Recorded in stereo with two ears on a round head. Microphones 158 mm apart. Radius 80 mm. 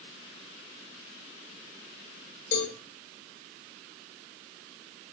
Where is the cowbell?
70° left (ahead or behind), 7.5 m.